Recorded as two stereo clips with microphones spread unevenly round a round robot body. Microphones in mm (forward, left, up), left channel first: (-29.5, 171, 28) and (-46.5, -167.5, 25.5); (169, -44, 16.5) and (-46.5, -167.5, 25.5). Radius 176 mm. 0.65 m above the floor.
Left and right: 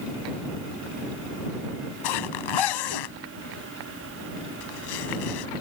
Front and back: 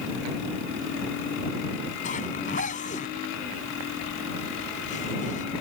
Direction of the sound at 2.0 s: 100° left.